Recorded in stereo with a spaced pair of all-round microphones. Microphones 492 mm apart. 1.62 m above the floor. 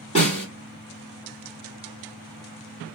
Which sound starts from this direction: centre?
A snare drum, at 0.1 s.